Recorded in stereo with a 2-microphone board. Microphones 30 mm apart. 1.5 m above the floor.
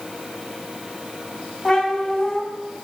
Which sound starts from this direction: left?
A cat meowing, at 1.6 s.